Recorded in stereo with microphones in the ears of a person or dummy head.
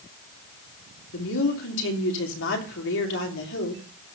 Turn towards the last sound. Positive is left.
turn(degrees=65)  # may be behind; listen again after turning